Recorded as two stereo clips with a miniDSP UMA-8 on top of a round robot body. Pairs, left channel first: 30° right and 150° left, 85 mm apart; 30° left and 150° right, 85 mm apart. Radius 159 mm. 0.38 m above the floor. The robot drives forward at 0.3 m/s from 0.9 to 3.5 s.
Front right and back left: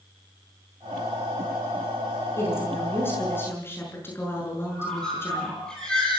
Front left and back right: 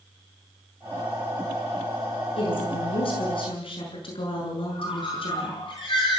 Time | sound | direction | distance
2.4 | a woman speaking | 35° left | 8 m
4.7 | a bird | 50° left | 9.5 m